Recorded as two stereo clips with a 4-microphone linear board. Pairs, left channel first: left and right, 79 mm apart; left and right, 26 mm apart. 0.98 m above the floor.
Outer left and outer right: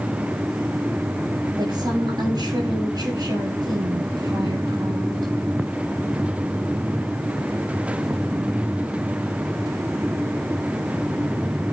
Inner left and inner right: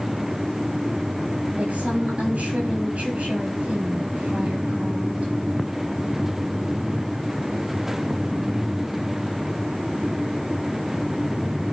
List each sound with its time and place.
1.6 s a woman speaking: 60° right (ahead or behind), 8 m